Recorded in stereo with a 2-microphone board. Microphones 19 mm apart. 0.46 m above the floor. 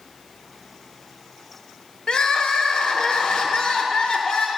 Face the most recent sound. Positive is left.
turn(degrees=50)  # may be behind; listen again after turning